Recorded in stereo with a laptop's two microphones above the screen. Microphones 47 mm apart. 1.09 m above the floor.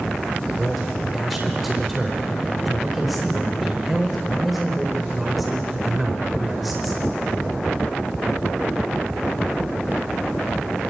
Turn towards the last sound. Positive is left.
turn(degrees=0)  # may be behind; listen again after turning